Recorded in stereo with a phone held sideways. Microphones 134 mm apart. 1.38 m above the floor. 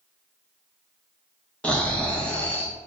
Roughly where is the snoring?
Centre.